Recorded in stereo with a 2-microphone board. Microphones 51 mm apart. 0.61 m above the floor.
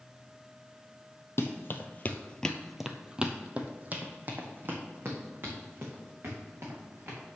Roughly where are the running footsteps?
Left.